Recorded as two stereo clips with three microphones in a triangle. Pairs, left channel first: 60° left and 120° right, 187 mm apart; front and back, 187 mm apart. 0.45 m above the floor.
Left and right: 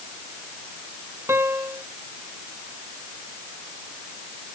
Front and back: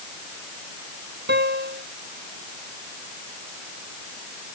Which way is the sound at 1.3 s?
165° left.